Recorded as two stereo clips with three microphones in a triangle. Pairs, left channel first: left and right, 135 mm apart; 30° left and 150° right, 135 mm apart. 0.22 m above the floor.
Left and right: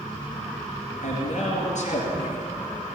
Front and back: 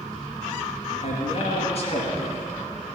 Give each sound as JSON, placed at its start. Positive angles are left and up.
{"t": 1.0, "sound": "a man speaking", "azimuth_deg": 70, "distance_m": 3.5}